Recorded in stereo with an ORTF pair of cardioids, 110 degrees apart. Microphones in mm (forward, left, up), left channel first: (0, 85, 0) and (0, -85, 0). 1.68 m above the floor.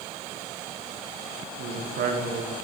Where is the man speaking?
65° right, 1.5 m.